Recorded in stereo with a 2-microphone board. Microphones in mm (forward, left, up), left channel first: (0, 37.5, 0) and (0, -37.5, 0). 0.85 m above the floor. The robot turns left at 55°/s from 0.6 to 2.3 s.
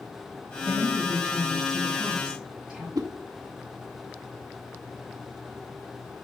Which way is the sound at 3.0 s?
60° right (ahead or behind).